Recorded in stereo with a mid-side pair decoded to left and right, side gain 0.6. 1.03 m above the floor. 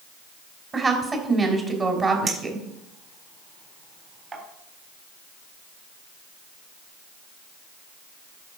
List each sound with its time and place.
0.7 s a woman speaking: 25° right, 4 m
2.3 s a clink: 30° right, 3.5 m